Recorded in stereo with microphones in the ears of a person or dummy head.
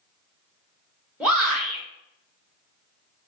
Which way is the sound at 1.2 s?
5° right (ahead or behind).